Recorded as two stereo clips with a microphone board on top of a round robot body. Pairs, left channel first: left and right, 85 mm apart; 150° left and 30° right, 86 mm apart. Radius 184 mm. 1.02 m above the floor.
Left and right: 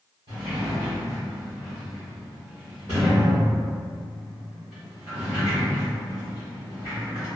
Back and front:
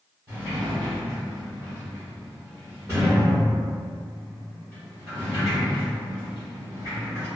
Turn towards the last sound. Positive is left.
turn(degrees=-90)